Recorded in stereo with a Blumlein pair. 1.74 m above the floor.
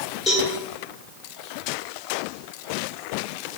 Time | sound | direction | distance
0.3 | a cowbell | 25° left | 1.3 m